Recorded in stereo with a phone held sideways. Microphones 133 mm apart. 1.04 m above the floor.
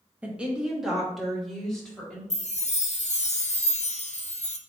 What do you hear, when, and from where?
0.2 s a woman speaking: 10° right (ahead or behind), 1.1 m; by 2.2 s 5° left (ahead or behind), 2.5 m
2.3 s a chime: 55° left (ahead or behind), 0.5 m